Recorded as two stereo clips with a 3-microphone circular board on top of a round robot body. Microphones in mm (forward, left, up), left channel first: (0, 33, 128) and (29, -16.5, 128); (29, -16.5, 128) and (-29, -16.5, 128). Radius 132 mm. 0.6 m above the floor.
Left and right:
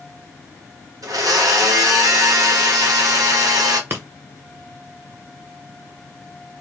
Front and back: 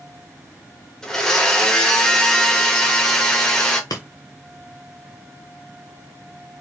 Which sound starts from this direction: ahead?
Breaking glass, at 3.9 s.